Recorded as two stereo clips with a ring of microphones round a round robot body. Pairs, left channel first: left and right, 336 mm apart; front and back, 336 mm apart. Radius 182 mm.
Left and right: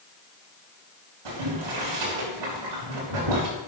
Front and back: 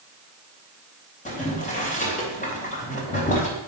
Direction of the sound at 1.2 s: 65° right.